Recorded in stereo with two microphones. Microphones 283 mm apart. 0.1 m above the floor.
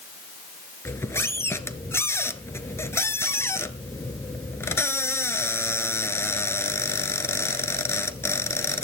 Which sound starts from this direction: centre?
A squeak, at 0.8 s.